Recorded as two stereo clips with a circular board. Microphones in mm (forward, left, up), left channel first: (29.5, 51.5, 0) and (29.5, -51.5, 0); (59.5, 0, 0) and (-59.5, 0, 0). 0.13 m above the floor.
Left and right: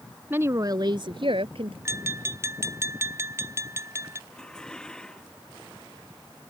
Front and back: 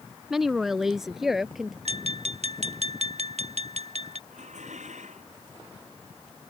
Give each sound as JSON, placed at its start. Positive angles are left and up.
{"t": 0.3, "sound": "a woman speaking", "azimuth_deg": -100}
{"t": 1.9, "sound": "tapping", "azimuth_deg": -155}
{"t": 4.3, "sound": "dishes clattering", "azimuth_deg": 175}